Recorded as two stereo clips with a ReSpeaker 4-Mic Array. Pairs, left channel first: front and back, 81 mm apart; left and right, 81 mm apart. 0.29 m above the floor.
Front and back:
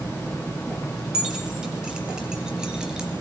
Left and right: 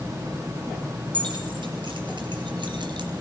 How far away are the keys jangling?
About 5 m.